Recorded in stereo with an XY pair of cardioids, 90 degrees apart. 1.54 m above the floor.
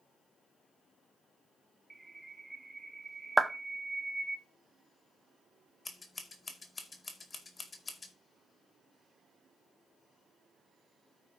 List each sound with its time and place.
1.9 s a bird: 20° right, 0.8 m
3.4 s a clap: 10° right, 0.8 m
5.8 s scissors: 35° left, 2 m